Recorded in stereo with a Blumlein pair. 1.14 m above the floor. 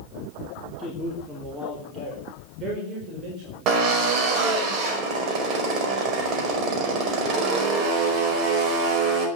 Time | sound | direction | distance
0.8 | a man speaking | 15° right | 3 m
3.7 | a drill | 35° right | 4.5 m